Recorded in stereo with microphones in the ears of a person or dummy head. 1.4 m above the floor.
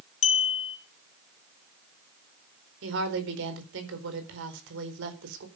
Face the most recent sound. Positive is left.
turn(degrees=-70)  # may be behind; listen again after turning